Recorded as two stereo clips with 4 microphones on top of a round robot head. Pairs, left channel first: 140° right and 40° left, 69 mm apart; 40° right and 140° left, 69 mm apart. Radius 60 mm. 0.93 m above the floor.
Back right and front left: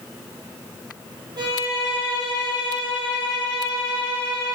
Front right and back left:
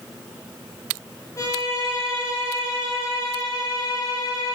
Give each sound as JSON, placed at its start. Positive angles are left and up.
{"t": 1.4, "sound": "a violin", "azimuth_deg": 5, "distance_m": 6.5}